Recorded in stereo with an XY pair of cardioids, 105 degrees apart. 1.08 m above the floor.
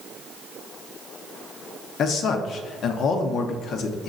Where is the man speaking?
65° left, 0.6 m.